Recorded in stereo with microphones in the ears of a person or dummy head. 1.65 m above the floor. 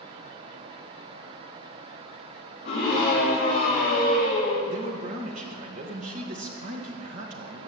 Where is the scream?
40° left (ahead or behind), 4 m; by 4.6 s 65° left (ahead or behind), 4 m.